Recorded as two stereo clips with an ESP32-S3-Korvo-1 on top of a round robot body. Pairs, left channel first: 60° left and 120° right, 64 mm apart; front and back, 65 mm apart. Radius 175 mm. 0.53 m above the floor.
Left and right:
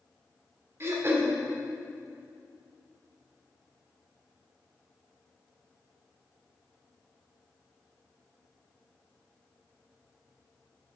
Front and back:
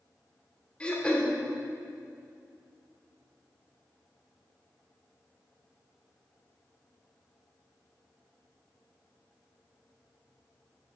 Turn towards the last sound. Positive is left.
turn(degrees=-70)